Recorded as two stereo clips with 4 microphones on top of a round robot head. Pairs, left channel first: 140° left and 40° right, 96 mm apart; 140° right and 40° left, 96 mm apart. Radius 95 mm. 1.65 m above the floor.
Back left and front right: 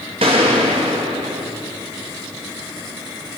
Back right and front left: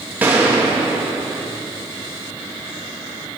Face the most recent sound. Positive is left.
turn(degrees=-30)